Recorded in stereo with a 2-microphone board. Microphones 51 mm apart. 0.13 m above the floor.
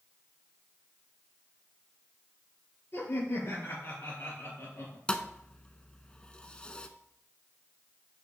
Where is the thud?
20° left (ahead or behind), 0.6 m.